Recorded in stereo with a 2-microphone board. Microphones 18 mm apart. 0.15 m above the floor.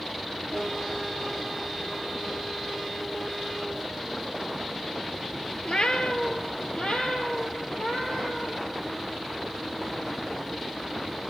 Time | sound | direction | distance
5.7 | a cat meowing | 65° left (ahead or behind) | 1.2 m